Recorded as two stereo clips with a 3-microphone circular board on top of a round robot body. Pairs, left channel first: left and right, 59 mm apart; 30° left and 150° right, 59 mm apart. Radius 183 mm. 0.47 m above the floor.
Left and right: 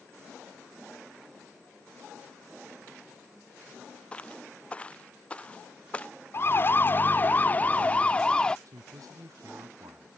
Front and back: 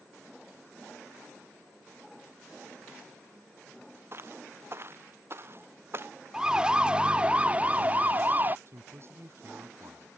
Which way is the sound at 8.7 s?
105° right.